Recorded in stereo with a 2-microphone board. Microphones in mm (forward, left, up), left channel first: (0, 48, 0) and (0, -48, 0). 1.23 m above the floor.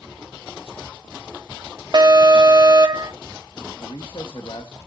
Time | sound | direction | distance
1.9 | an alarm | 45° right (ahead or behind) | 1.2 m
3.8 | a man speaking | 55° left (ahead or behind) | 1.5 m